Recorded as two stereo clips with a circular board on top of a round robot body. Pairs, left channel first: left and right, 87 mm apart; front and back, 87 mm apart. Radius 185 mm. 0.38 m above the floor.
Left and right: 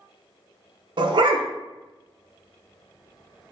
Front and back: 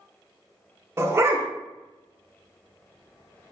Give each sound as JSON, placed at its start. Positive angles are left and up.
{"t": 1.0, "sound": "a dog barking", "azimuth_deg": -120, "distance_m": 0.5}